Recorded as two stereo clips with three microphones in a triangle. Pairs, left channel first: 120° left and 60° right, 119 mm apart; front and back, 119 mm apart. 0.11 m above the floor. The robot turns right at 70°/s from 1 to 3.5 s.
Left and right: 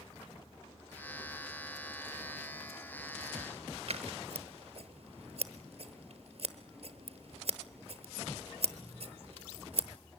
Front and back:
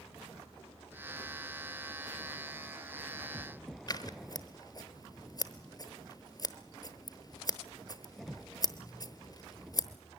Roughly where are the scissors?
Ahead right.